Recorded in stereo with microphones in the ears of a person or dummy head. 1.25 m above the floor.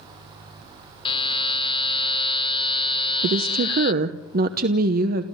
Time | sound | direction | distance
1.1 | a buzzer | 25° left (ahead or behind) | 1.4 m
3.2 | a woman speaking | 50° right (ahead or behind) | 1.0 m